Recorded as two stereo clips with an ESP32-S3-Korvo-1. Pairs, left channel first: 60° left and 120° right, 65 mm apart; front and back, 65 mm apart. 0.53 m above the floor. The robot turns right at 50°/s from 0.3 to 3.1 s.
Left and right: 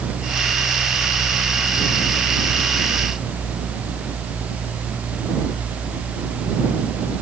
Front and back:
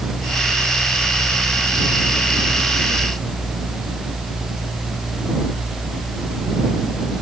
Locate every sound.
Only background noise.